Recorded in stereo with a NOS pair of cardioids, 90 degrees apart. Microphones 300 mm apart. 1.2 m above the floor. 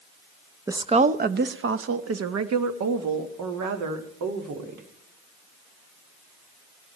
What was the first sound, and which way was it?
A woman speaking, 10° right.